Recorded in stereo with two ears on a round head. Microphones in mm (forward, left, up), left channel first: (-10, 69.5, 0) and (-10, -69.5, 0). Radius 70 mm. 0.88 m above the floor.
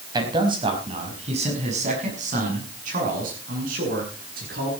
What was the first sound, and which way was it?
A man speaking, 30° right (ahead or behind).